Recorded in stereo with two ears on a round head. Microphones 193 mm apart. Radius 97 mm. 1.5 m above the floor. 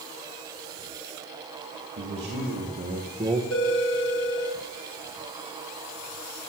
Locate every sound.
2.0 s a man speaking: 60° right (ahead or behind), 2.5 m; by 3.4 s 5° right (ahead or behind), 1.2 m
3.5 s a phone ringing: 75° left (ahead or behind), 3 m